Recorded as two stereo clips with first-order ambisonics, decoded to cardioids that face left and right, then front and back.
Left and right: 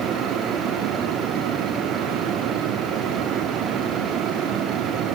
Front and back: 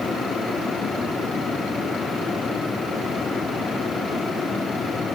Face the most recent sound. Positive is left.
No sound to turn to.